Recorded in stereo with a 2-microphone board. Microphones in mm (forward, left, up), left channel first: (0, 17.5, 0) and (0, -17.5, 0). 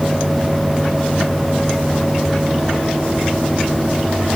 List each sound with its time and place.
Only background noise.